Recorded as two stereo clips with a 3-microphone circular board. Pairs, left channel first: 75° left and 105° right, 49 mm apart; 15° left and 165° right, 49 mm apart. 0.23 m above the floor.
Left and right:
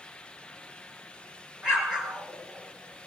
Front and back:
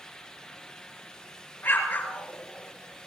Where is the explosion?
35° right, 4.5 m.